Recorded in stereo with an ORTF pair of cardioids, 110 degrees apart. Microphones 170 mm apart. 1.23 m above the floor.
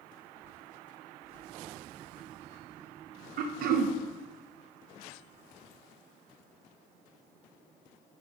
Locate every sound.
3.4 s throat clearing: 60° right, 0.8 m